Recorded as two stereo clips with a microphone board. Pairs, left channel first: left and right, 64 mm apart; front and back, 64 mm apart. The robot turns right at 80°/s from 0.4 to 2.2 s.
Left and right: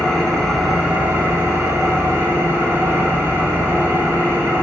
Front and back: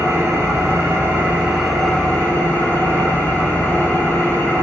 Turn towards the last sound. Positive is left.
turn(degrees=-50)